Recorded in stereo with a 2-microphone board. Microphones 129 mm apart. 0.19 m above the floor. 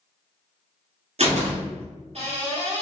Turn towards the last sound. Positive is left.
turn(degrees=-60)  # may be behind; listen again after turning